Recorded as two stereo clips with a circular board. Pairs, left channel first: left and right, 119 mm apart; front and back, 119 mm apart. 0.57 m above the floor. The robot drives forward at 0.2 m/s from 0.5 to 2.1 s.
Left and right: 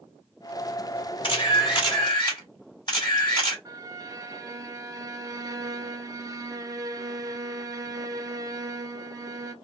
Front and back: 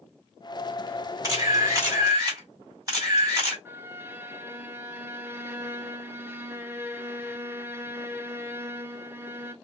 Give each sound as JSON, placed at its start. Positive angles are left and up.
{"t": 1.2, "sound": "a camera shutter", "azimuth_deg": 125, "distance_m": 1.8}
{"t": 3.6, "sound": "a violin", "azimuth_deg": -125, "distance_m": 0.5}